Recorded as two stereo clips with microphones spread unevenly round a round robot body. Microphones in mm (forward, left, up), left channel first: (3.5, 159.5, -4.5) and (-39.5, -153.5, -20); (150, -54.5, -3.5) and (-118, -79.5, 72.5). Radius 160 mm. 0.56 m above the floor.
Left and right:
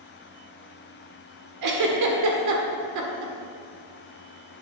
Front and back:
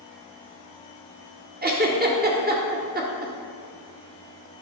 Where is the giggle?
110° right, 1.5 m.